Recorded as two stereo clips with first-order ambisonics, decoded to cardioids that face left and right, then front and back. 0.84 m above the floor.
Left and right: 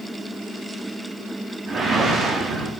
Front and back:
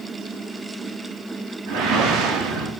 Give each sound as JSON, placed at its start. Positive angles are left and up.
{"t": 1.7, "sound": "a whoosh", "azimuth_deg": -160, "distance_m": 0.7}